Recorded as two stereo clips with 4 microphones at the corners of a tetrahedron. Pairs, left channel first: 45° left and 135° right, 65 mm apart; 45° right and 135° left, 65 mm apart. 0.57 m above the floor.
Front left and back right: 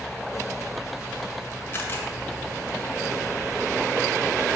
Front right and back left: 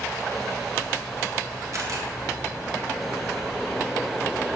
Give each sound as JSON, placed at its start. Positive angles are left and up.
{"t": 1.7, "sound": "a camera shutter", "azimuth_deg": 100, "distance_m": 1.7}